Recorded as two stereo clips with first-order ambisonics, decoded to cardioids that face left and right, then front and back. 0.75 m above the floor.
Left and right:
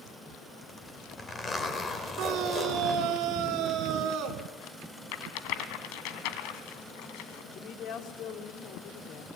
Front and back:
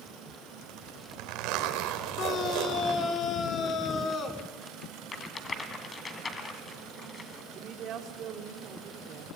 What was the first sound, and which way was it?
A zipper, 165° left.